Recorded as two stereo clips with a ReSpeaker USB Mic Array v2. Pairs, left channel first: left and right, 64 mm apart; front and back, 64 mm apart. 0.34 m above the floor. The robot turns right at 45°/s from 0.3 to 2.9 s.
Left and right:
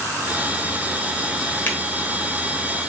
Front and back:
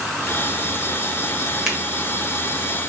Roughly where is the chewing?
No chewing in this recording.